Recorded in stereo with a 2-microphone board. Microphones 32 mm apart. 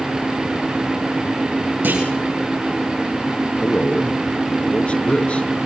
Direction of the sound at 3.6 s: 40° left (ahead or behind).